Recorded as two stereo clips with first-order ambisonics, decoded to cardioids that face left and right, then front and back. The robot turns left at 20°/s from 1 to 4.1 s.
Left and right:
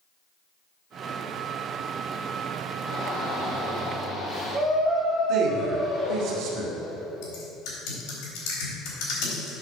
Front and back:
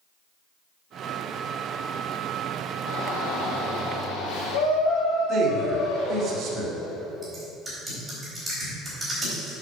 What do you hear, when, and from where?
2.9 s a shout: 20° left, 2.5 m; by 6.3 s 5° right, 2.5 m
5.3 s a man speaking: 130° right, 2.0 m
7.2 s typing on a keyboard: 100° left, 4 m